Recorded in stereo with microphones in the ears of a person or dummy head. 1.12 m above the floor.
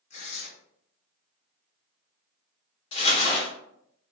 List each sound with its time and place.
0.1 s tearing paper: 40° left (ahead or behind), 1.4 m
2.9 s crumpling: 35° left (ahead or behind), 1.2 m